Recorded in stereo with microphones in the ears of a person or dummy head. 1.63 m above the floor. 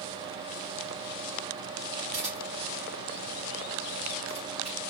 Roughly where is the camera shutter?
Centre.